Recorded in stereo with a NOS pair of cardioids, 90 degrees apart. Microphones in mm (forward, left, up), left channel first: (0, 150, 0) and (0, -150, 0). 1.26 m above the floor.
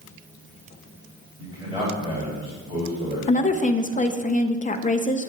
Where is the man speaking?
15° right, 3 m.